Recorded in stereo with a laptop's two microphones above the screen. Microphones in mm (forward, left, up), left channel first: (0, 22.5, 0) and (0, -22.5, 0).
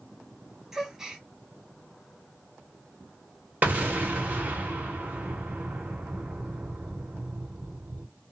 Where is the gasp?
10° right (ahead or behind), 0.8 m.